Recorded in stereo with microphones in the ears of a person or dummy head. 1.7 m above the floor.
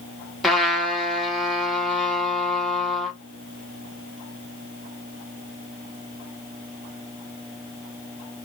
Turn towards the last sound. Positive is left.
turn(degrees=0)  # may be behind; listen again after turning